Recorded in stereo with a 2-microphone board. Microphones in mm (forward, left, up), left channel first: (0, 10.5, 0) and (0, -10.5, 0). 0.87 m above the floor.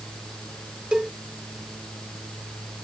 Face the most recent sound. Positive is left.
turn(degrees=-50)  # may be behind; listen again after turning